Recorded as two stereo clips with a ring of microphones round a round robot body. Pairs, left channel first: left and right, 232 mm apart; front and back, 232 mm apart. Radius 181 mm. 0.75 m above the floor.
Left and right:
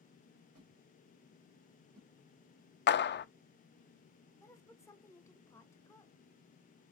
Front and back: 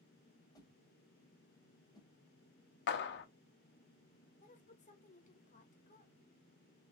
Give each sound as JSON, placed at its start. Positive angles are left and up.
{"t": 0.6, "sound": "a whoosh", "azimuth_deg": -75, "distance_m": 1.8}
{"t": 2.9, "sound": "a clap", "azimuth_deg": 40, "distance_m": 0.5}
{"t": 4.4, "sound": "a woman speaking", "azimuth_deg": 20, "distance_m": 1.2}